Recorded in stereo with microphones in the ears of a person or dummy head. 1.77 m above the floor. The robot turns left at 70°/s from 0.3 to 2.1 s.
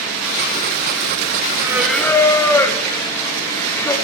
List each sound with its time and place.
1.6 s singing: 160° right, 1.1 m; by 4.0 s 165° left, 1.1 m